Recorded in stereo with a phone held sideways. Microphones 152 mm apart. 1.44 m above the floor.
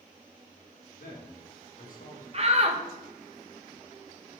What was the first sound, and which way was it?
A man speaking, 85° left.